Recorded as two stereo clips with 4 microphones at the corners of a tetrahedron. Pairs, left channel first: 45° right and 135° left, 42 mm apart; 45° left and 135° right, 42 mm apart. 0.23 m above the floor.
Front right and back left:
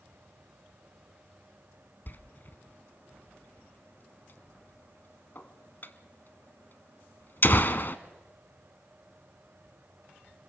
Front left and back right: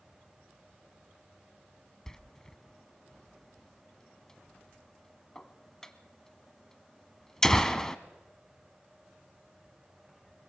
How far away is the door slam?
About 1.1 m.